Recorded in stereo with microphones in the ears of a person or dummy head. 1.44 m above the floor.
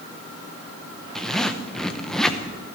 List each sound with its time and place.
1.1 s a zipper: centre (ahead or behind), 0.8 m